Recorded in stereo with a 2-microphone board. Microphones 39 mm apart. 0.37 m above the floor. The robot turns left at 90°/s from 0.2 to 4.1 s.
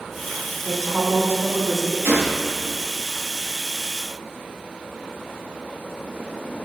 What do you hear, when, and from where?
0.6 s a woman speaking: 5° left, 2.5 m; by 1.9 s 115° right, 2.5 m
2.0 s a gunshot: 70° right (ahead or behind), 3.5 m; by 2.6 s 25° right (ahead or behind), 3.5 m